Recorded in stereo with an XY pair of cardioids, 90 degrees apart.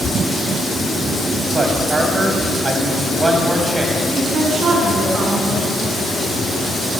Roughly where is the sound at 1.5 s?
Ahead right.